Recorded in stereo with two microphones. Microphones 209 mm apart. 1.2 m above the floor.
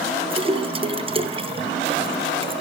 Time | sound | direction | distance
0.3 | a splash | 25° right (ahead or behind) | 0.7 m